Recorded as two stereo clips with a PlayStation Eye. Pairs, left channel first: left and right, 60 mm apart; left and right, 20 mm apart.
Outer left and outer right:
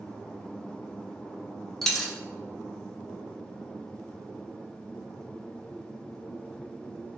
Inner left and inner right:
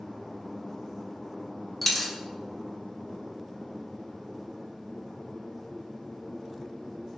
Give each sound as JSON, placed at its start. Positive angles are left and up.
{"t": 1.8, "sound": "a dropped coin", "side_deg": 5, "distance_m": 0.6}